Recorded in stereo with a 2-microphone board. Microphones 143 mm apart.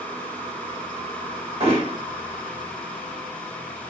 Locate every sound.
1.6 s hammering: 45° right (ahead or behind), 2 m